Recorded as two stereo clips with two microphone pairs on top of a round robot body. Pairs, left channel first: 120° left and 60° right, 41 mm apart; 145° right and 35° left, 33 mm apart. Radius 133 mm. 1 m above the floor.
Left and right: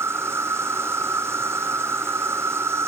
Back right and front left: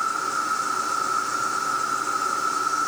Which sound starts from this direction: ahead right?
An insect, at 0.0 s.